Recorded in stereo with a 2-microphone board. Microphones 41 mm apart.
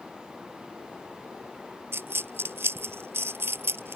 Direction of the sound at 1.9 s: 70° right (ahead or behind).